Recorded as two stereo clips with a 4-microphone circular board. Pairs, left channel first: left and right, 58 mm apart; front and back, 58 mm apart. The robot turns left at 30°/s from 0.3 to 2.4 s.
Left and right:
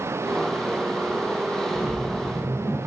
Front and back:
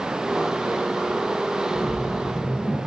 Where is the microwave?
No microwave in this recording.